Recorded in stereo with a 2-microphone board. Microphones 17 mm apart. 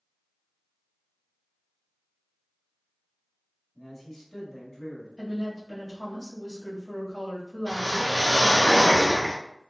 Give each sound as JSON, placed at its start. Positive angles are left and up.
{"t": 3.8, "sound": "a man speaking", "side_deg": 10, "distance_m": 1.0}
{"t": 5.2, "sound": "a woman speaking", "side_deg": 35, "distance_m": 1.5}
{"t": 7.7, "sound": "a whoosh", "side_deg": 55, "distance_m": 1.3}